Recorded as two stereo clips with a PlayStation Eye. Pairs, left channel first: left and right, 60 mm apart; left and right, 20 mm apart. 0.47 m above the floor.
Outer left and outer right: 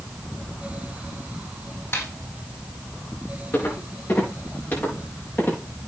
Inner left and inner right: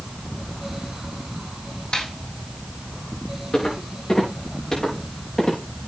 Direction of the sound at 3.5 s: 40° left (ahead or behind).